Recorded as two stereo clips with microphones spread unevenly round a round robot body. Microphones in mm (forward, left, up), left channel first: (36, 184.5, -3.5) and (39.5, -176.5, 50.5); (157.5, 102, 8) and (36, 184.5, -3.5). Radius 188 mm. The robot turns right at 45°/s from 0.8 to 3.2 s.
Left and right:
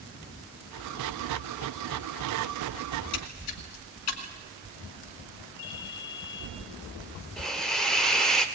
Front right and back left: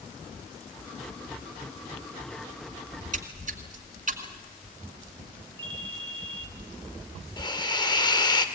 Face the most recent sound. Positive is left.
turn(degrees=15)